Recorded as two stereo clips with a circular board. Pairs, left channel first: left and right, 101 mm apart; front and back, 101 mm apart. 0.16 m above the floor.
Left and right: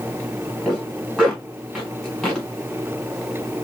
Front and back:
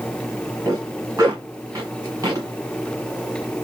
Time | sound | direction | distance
0.7 | a zipper | straight behind | 1.8 m